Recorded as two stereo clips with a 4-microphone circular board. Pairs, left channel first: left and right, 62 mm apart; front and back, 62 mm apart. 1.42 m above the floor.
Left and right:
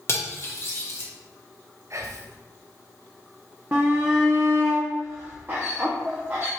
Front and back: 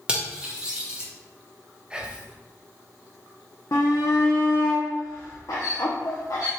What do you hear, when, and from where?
0.1 s cutlery clinking: 110° left, 0.9 m
1.9 s whispering: 105° right, 0.5 m
3.7 s a shout: 35° right, 0.6 m